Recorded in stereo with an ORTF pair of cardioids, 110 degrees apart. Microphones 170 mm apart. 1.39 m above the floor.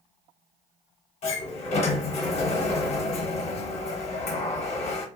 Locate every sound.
1.2 s a sliding door: 40° left, 0.8 m